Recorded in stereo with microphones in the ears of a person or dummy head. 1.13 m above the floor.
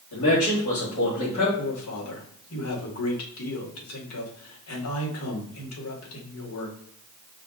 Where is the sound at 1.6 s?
80° left, 1.6 m.